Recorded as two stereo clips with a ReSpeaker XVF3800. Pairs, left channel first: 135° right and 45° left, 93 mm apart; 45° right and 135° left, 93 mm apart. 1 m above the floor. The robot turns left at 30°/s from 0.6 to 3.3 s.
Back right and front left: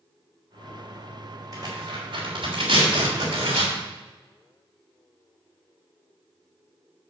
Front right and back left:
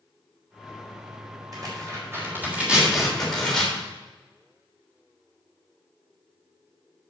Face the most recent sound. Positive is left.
turn(degrees=40)